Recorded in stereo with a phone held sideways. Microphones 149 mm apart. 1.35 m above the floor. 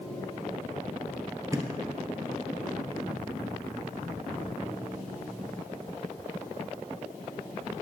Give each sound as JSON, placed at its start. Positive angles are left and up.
{"t": 1.5, "sound": "a thud", "side_deg": -20, "distance_m": 1.7}